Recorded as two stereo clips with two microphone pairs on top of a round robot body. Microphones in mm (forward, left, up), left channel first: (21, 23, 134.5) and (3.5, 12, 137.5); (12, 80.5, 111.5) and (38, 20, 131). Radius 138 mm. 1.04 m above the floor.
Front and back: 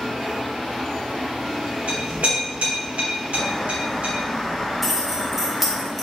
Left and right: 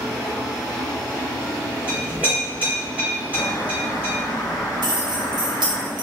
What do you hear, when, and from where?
1.9 s a clink: 135° right, 1.8 m
3.3 s a bird: 95° left, 1.4 m
4.8 s keys jangling: 65° right, 0.8 m